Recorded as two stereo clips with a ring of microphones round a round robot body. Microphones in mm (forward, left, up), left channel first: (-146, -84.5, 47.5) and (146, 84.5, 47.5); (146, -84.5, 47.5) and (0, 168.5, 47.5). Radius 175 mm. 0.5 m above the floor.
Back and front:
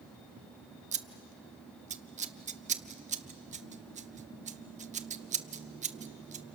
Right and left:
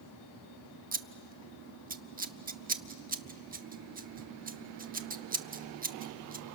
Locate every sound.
0.9 s scissors: 85° left, 0.9 m